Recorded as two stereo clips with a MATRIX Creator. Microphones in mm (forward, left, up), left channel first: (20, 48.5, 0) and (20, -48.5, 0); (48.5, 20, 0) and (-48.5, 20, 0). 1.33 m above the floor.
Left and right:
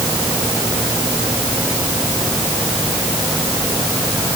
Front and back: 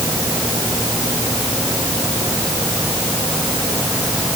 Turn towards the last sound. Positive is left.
No sound to turn to.